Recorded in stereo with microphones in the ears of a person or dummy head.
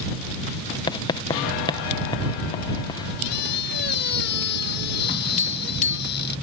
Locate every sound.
0.9 s writing: 25° left (ahead or behind)
3.2 s a squeak: 65° left (ahead or behind)
5.4 s tapping: 40° left (ahead or behind)